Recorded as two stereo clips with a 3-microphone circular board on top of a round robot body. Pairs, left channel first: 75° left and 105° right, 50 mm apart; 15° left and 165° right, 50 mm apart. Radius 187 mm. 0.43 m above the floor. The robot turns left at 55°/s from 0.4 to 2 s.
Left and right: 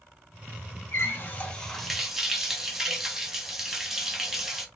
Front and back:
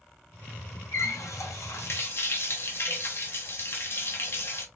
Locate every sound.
0.9 s a running tap: 40° left, 1.0 m; by 4.7 s 20° right, 1.0 m